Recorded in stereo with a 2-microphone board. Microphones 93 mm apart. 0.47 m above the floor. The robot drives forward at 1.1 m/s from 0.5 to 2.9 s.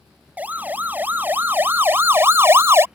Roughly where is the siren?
Centre.